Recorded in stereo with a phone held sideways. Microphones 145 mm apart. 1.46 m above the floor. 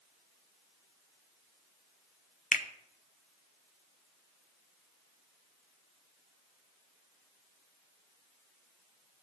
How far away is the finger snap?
About 0.6 m.